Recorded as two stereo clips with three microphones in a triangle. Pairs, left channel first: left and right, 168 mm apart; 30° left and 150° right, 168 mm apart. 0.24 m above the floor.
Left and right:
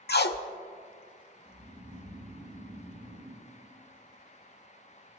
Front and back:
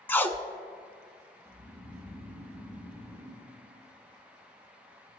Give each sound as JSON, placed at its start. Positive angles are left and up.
{"t": 0.1, "sound": "tape being pulled", "azimuth_deg": 105, "distance_m": 0.5}
{"t": 1.4, "sound": "snoring", "azimuth_deg": -30, "distance_m": 2.0}